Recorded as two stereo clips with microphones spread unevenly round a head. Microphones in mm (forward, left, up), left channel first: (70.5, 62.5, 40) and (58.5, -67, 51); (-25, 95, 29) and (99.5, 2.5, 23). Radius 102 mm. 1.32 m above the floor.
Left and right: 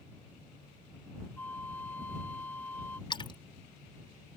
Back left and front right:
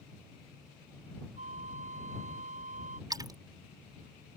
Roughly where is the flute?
Ahead.